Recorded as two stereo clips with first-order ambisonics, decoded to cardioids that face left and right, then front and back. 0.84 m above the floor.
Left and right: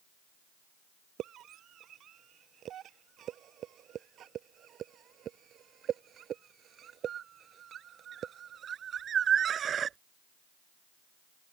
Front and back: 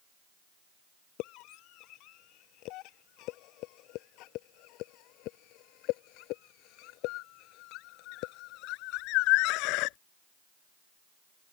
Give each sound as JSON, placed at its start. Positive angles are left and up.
{"t": 1.2, "sound": "a scream", "azimuth_deg": -35}